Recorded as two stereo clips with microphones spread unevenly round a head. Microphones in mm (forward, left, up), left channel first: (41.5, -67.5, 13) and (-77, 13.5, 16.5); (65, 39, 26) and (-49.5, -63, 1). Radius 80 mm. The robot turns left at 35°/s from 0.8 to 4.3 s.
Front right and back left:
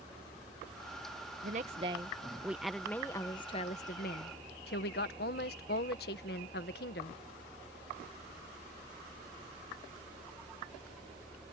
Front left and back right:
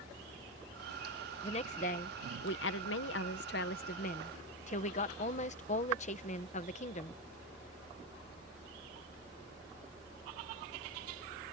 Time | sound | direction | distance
1.4 | a woman speaking | 100° left | ?